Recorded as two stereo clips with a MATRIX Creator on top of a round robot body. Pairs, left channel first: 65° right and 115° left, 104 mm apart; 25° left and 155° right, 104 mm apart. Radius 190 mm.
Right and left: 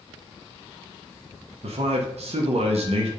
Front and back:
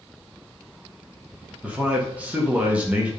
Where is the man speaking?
125° left, 1.7 m.